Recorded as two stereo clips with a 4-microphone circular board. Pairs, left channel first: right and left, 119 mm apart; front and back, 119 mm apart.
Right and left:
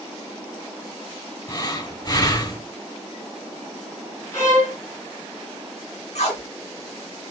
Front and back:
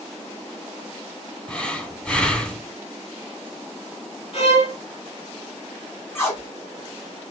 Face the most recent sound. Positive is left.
turn(degrees=-70)